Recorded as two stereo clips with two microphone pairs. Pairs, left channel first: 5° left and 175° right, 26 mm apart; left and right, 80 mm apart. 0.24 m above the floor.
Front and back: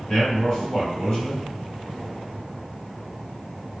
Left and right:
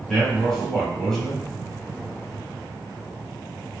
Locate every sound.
0.1 s a man speaking: 15° left, 1.3 m